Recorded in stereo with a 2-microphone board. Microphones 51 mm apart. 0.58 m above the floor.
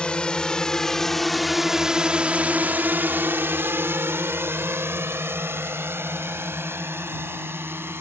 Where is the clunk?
No clunk in this recording.